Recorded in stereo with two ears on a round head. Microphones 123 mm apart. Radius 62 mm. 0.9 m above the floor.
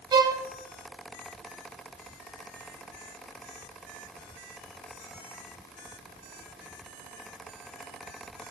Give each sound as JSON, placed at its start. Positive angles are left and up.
{"t": 0.1, "sound": "a violin", "side_deg": -30, "distance_m": 0.7}